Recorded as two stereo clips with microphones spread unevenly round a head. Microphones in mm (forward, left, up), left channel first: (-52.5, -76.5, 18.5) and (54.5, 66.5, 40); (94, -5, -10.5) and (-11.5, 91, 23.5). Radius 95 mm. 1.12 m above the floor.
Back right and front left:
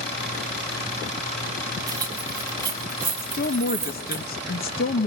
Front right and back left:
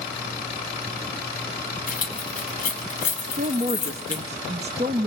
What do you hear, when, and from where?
1.9 s keys jangling: 15° right, 5.5 m
3.2 s a woman speaking: 160° right, 1.5 m